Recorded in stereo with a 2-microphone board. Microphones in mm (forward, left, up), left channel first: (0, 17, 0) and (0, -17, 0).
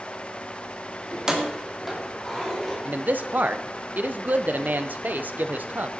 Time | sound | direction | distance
1.1 | keys jangling | 25° right (ahead or behind) | 2.0 m
2.9 | a man speaking | 60° right (ahead or behind) | 0.9 m